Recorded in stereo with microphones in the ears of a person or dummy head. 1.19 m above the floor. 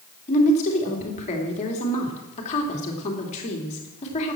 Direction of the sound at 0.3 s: 40° left (ahead or behind).